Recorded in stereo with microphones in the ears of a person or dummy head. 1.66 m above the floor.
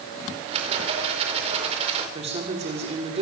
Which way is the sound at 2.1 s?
35° right (ahead or behind).